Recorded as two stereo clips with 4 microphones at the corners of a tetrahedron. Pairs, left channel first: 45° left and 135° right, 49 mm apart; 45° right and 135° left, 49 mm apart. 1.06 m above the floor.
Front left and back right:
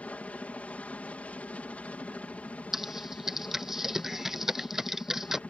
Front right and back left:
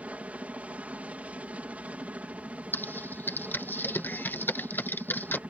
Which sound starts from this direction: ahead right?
Typing on a keyboard, at 2.7 s.